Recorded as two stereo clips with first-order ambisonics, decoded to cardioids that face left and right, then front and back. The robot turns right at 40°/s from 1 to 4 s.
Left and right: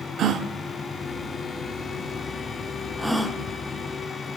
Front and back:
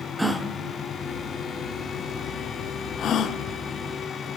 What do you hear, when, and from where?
0.2 s a gasp: 95° right, 0.6 m; by 3.4 s straight ahead, 0.6 m